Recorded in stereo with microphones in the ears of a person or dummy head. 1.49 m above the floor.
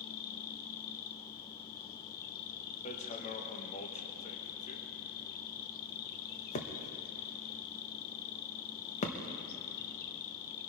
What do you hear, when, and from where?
0.0 s an insect: 55° left (ahead or behind), 0.9 m
2.9 s hammering: 40° left (ahead or behind), 1.1 m